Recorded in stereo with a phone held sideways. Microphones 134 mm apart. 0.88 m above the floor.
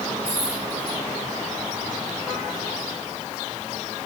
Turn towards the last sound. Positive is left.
turn(degrees=20)  # may be behind; listen again after turning